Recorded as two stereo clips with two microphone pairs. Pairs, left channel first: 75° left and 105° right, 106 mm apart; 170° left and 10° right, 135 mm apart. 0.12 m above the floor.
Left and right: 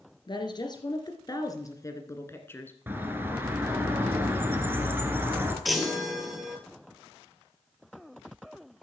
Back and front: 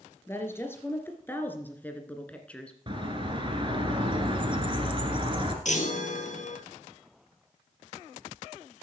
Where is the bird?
45° right, 2 m.